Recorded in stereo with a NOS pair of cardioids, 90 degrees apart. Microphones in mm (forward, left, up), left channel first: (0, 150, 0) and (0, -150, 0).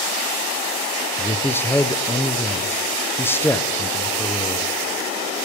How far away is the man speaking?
About 0.5 m.